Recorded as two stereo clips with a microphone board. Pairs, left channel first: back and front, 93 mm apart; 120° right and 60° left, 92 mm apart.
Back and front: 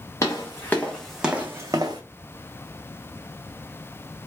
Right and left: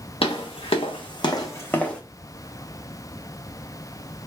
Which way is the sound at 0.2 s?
125° right.